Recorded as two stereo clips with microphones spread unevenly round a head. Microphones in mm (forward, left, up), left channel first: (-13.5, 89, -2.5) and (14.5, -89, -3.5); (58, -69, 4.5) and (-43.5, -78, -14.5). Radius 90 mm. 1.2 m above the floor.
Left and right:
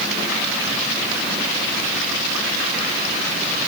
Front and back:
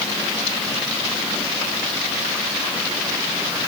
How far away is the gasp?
No gasp in this recording.